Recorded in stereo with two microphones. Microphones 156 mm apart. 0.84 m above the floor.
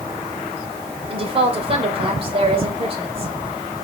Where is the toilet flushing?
I don't hear a toilet flushing.